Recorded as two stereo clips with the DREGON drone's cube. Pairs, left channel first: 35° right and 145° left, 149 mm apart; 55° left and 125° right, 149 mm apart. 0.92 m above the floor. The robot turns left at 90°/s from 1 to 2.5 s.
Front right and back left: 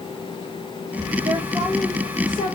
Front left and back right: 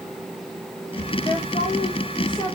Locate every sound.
1.2 s a woman speaking: 110° left, 0.8 m; by 2.6 s 5° right, 0.8 m